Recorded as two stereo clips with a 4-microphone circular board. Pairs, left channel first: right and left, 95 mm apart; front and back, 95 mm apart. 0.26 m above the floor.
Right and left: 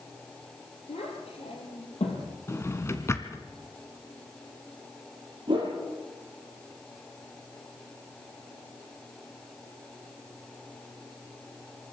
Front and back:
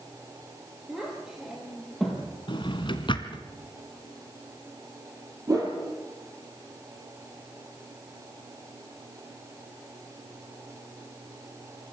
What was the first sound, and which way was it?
A child speaking, 100° right.